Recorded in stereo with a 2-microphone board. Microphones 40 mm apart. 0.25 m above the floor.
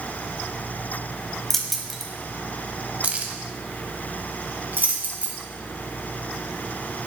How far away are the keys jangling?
About 1.1 m.